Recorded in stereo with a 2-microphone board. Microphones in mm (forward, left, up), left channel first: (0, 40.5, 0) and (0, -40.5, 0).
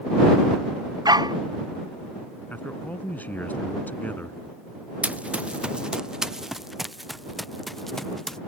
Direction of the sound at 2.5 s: 20° left (ahead or behind).